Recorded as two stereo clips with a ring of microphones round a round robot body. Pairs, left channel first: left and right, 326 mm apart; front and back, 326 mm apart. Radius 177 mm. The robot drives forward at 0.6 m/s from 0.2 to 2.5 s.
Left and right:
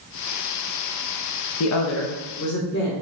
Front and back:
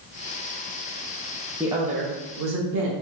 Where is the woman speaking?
95° left, 0.5 m; by 2.9 s 150° left, 0.8 m.